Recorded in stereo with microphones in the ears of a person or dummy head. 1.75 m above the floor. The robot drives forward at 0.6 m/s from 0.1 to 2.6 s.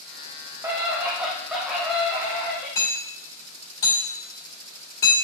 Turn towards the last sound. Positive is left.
turn(degrees=30)  # may be behind; listen again after turning